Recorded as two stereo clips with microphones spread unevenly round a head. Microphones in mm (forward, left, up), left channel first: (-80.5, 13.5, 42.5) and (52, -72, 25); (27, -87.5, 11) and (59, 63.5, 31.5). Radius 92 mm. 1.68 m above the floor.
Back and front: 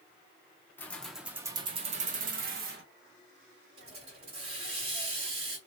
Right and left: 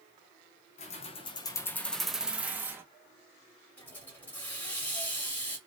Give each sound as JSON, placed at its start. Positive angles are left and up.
{"t": 0.8, "sound": "keys jangling", "azimuth_deg": -145, "distance_m": 0.7}
{"t": 3.8, "sound": "a hiss", "azimuth_deg": -25, "distance_m": 1.5}